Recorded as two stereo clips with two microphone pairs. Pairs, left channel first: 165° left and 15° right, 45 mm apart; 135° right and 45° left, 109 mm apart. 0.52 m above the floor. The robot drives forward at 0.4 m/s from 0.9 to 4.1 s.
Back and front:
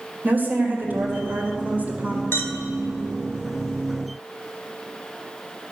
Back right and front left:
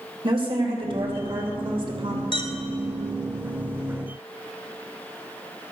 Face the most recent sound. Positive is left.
turn(degrees=-170)